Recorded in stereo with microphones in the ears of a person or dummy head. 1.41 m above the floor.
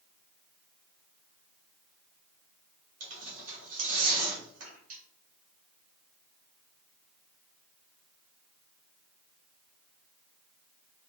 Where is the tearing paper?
40° right (ahead or behind), 1.3 m.